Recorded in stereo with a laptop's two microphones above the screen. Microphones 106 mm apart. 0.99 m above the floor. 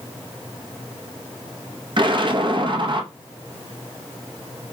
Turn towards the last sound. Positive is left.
turn(degrees=-45)  # may be behind; listen again after turning